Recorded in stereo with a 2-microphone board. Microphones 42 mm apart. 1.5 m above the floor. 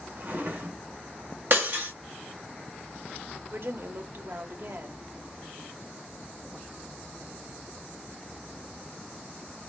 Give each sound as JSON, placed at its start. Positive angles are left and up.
{"t": 0.2, "sound": "a drawer", "side_deg": -50, "distance_m": 2.0}
{"t": 1.5, "sound": "breaking glass", "side_deg": -55, "distance_m": 1.2}
{"t": 3.5, "sound": "a woman speaking", "side_deg": -55, "distance_m": 0.8}